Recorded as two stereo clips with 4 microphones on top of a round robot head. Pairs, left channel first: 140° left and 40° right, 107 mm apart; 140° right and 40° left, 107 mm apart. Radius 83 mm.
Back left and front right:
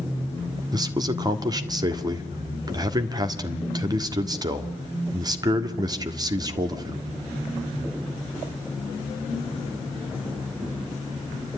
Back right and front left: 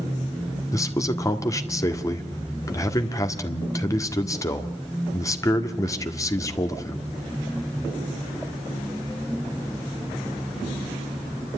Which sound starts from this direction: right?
A man speaking, at 0.7 s.